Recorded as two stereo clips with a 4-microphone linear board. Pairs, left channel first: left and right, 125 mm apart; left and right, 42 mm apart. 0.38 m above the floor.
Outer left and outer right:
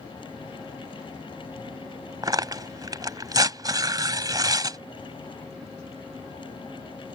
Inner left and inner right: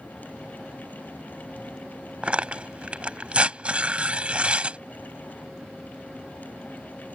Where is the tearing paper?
35° right (ahead or behind).